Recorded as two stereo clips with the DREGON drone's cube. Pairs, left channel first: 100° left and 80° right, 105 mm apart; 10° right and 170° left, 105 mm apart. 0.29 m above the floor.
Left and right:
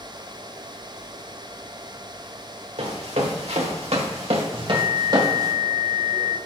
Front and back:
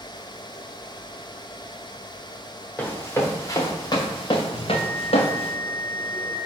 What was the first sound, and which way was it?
Running footsteps, 80° right.